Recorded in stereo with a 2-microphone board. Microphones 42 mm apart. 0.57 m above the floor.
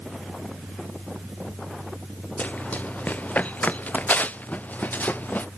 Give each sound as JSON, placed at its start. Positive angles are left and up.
{"t": 2.4, "sound": "running footsteps", "side_deg": 40}